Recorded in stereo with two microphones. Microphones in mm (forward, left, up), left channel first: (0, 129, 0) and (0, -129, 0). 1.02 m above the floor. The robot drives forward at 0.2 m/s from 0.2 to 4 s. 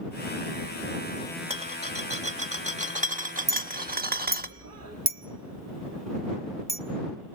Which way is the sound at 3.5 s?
70° right (ahead or behind).